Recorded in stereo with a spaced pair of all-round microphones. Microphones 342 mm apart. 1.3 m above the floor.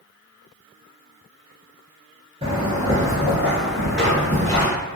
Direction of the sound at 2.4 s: 15° right (ahead or behind).